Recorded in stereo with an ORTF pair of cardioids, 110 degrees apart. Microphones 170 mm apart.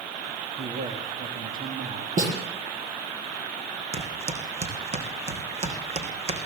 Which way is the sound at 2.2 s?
50° right.